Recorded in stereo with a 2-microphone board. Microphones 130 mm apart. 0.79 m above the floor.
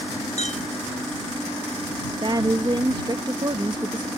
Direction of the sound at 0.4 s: 70° left (ahead or behind).